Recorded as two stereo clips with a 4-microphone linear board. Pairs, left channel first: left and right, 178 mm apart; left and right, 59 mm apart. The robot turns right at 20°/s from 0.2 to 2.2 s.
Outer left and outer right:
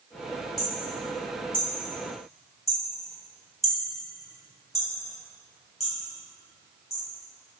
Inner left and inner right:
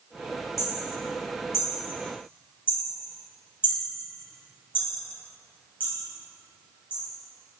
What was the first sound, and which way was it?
Hammering, 65° left (ahead or behind).